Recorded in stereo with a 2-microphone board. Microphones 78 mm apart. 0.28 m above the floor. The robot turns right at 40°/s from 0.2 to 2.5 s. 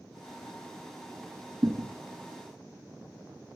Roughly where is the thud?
Right.